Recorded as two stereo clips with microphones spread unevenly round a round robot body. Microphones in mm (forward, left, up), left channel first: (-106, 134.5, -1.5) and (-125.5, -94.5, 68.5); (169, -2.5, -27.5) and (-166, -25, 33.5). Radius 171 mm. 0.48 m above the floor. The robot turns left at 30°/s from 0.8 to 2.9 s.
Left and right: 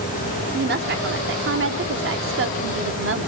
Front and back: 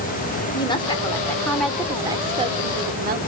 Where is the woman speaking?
50° right, 1.4 m; by 3.3 s 110° right, 1.4 m.